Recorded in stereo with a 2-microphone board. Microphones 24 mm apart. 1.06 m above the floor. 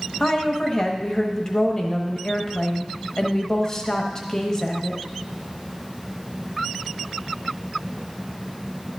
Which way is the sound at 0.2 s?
25° left (ahead or behind).